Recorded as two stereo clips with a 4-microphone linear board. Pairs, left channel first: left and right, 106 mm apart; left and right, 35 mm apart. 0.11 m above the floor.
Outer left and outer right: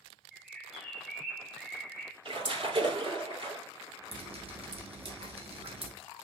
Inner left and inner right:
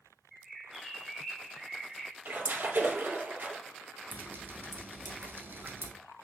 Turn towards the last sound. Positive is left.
turn(degrees=-65)  # may be behind; listen again after turning